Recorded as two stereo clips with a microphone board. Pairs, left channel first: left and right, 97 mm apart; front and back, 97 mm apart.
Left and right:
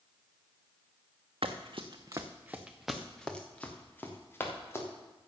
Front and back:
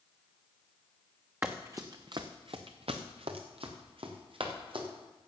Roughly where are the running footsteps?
Right.